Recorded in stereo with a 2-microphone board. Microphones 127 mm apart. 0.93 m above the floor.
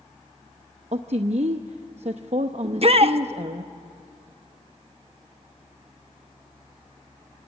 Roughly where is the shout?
Right.